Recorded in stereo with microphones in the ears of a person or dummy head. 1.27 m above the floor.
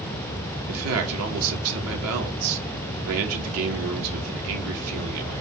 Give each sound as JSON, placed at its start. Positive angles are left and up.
{"t": 0.7, "sound": "a man speaking", "side_deg": -80, "distance_m": 1.3}